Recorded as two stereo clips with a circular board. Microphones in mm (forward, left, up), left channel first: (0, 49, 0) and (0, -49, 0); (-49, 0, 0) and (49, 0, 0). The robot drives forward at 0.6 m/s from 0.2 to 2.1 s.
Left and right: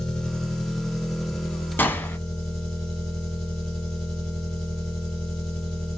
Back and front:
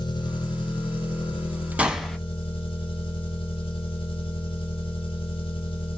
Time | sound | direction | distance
0.0 | an engine running | 170° left | 1.1 m
1.8 | a gunshot | 55° left | 0.7 m